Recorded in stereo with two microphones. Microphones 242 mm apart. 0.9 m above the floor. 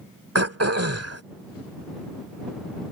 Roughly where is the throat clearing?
Right.